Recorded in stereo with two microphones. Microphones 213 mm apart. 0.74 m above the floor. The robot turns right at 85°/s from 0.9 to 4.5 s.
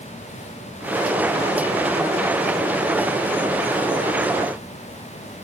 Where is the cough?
No cough in this recording.